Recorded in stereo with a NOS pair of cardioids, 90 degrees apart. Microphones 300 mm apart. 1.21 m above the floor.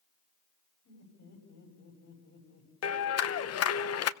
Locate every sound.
0.8 s laughter: 65° left, 8 m
2.8 s a clap: 55° left, 0.8 m